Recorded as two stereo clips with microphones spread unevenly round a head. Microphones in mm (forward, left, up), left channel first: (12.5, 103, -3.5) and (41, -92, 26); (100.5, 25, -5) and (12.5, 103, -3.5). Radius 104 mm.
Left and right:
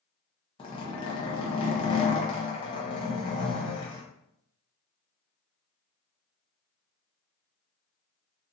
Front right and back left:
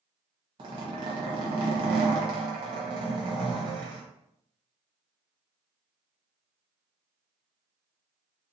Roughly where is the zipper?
Behind left.